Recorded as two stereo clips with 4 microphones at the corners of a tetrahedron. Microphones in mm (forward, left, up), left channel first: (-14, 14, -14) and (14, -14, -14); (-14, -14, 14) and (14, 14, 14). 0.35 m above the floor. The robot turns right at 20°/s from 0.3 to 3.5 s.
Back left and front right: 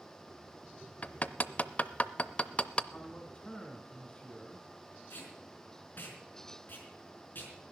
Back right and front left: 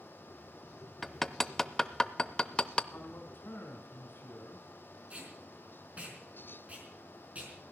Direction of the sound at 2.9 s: 170° right.